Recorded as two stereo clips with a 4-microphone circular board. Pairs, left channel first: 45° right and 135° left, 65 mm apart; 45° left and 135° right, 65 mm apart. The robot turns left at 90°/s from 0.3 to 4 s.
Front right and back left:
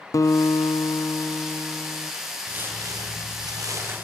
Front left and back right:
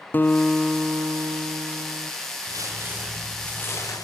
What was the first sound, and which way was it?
A guitar, 15° right.